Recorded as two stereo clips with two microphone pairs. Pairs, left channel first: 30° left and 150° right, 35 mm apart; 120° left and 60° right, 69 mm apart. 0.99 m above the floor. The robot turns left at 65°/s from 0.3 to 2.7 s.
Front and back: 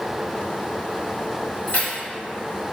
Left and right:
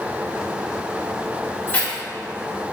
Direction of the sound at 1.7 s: 65° left.